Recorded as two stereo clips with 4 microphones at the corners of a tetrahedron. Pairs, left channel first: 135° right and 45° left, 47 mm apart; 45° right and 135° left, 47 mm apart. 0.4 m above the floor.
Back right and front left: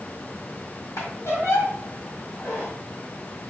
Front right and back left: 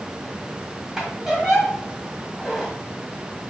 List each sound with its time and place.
1.0 s a squeak: 140° right, 2 m